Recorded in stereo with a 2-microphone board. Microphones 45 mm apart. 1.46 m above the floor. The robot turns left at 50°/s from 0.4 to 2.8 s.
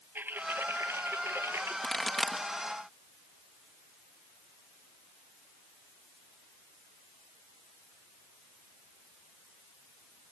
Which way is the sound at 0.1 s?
55° right.